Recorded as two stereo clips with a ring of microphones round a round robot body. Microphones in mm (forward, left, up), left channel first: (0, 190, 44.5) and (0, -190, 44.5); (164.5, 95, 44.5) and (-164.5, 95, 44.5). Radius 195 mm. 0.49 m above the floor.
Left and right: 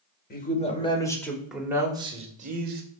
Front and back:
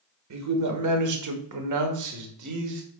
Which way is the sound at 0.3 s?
155° left.